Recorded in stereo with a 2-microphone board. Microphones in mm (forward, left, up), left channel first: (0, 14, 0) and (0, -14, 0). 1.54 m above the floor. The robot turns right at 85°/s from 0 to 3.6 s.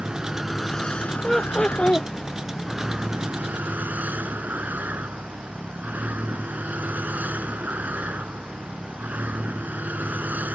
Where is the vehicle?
45° right; by 10.5 s 100° right.